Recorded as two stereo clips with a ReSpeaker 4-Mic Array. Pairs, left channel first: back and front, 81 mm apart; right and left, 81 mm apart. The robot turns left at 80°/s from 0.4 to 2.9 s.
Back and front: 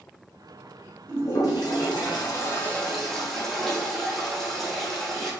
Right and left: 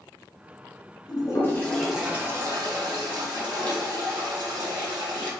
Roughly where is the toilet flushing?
Behind right.